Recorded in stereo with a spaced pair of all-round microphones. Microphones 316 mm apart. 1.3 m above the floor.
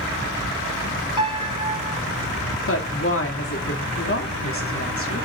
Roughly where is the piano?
Left.